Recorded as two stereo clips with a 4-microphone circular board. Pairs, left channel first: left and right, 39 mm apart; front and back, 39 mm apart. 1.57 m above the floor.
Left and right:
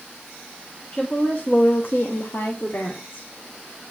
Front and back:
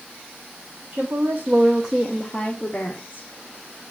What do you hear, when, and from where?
0.9 s a woman speaking: 155° left, 1.5 m; by 3.3 s 40° left, 1.8 m